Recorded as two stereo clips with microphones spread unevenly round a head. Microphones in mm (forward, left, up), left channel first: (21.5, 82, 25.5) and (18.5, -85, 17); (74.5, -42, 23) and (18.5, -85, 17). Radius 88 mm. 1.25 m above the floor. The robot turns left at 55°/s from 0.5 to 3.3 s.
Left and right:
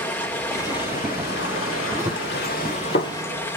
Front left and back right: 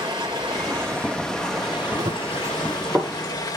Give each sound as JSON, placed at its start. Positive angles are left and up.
{"t": 0.0, "sound": "running water", "azimuth_deg": 165, "distance_m": 2.0}
{"t": 2.0, "sound": "running footsteps", "azimuth_deg": -170, "distance_m": 1.7}